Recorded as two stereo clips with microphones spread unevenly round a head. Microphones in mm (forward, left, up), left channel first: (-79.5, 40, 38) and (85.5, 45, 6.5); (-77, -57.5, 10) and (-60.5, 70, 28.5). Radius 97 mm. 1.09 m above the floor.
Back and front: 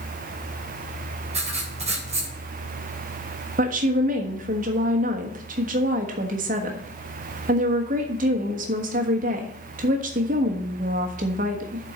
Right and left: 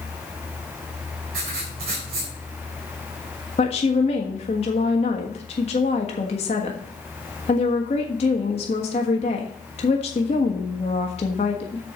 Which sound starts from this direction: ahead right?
A woman speaking, at 3.6 s.